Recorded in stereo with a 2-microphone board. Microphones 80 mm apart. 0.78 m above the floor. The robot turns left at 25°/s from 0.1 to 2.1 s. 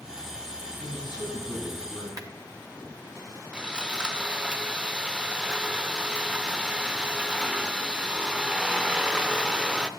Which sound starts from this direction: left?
A man speaking, at 0.8 s.